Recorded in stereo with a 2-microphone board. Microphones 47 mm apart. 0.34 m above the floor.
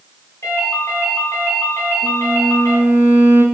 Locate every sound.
0.4 s a ringtone: 65° left (ahead or behind), 1.9 m
2.0 s a violin: 50° right (ahead or behind), 0.9 m